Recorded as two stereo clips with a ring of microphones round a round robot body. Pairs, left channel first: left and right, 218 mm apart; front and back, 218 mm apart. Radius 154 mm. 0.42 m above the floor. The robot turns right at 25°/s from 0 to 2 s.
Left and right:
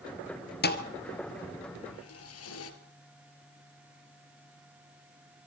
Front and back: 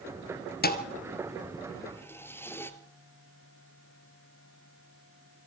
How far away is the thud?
About 2 m.